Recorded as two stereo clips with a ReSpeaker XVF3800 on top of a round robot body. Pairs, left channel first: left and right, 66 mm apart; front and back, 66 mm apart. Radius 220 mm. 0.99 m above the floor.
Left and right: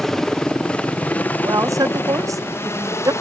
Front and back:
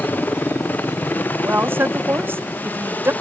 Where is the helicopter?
10° left; by 3.2 s 60° left.